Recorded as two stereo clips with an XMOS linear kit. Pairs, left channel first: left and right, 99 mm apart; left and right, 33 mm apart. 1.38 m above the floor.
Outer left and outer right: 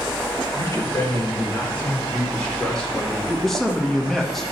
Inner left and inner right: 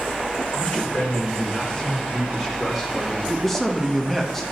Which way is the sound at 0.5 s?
30° left (ahead or behind).